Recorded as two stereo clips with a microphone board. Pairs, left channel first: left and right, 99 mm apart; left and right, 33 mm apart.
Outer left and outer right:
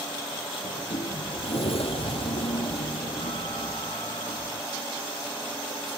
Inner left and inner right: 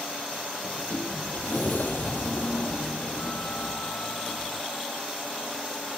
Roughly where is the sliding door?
Left.